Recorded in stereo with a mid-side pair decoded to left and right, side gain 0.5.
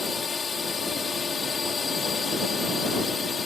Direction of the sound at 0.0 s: 35° left.